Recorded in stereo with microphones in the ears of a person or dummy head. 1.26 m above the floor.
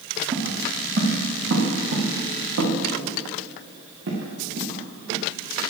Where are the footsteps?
40° right (ahead or behind), 5 m; by 5.2 s 70° right (ahead or behind), 8 m.